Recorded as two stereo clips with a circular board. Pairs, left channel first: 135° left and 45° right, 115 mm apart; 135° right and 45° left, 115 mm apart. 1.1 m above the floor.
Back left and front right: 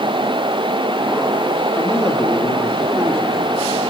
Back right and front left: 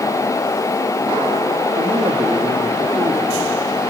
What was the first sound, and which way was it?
A man speaking, 70° left.